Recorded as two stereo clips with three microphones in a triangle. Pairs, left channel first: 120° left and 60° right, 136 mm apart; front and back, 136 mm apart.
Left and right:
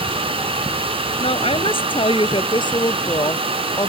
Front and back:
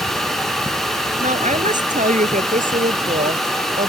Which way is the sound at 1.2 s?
160° left.